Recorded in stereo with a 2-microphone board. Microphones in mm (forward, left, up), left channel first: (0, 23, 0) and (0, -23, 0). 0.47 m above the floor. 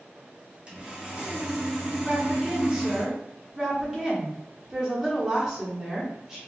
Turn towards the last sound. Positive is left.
turn(degrees=-15)  # may be behind; listen again after turning